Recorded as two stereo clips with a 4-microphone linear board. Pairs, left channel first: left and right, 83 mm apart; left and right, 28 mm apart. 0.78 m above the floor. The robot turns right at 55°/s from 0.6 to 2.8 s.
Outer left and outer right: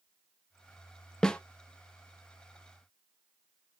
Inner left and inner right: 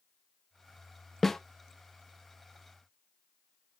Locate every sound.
1.2 s a snare drum: 10° left (ahead or behind), 0.6 m